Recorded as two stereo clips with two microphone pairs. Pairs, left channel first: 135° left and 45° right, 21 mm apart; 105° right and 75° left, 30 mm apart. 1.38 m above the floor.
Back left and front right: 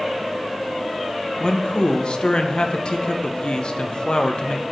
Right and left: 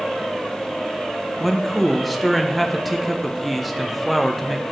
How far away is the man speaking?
About 0.7 m.